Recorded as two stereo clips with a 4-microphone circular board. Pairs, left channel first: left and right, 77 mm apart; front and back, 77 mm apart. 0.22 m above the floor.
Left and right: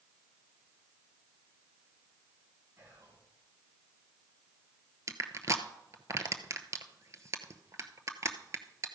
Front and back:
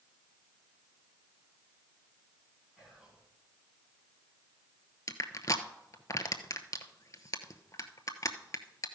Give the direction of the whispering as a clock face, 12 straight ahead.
4 o'clock.